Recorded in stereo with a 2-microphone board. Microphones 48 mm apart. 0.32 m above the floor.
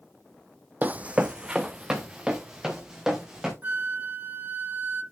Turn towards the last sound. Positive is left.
turn(degrees=-50)  # may be behind; listen again after turning